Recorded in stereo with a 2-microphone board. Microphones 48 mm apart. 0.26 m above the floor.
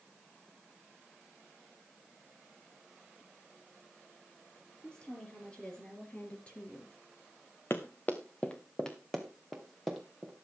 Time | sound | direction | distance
4.8 | a woman speaking | 20° left (ahead or behind) | 5.5 m
7.7 | running footsteps | 55° left (ahead or behind) | 1.6 m